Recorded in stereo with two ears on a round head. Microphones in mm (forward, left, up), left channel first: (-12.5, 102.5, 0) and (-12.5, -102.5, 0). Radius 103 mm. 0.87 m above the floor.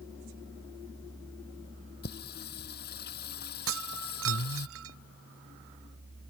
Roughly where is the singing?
Left.